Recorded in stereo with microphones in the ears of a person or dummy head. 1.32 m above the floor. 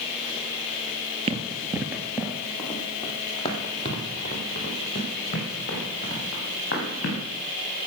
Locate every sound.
1.3 s running footsteps: 35° right (ahead or behind), 1.7 m; by 7.2 s 45° left (ahead or behind), 7 m